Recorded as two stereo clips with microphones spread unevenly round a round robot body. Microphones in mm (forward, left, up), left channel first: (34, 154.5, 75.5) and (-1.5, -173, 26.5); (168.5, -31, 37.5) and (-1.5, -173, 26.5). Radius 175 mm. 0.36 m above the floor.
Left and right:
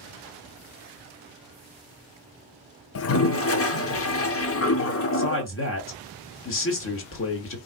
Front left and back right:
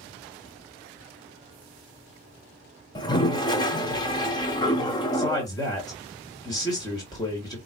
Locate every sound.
3.0 s a toilet flushing: 100° left, 0.7 m
5.1 s a man speaking: 105° left, 1.7 m